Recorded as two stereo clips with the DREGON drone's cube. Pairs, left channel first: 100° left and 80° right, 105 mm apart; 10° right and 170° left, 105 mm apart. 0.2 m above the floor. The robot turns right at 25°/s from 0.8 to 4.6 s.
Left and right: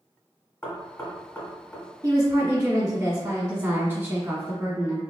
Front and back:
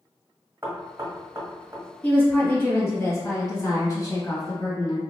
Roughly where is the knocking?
Behind left.